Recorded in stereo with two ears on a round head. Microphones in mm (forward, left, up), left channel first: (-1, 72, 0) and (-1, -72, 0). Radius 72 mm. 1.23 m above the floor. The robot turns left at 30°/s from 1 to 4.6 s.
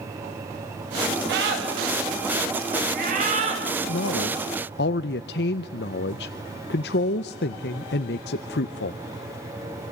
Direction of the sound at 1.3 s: 70° right (ahead or behind).